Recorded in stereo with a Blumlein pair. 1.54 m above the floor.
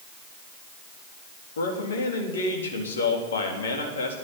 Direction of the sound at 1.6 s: 65° left.